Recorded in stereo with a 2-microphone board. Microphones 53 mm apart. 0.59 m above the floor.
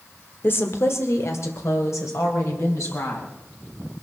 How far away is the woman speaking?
About 1.4 m.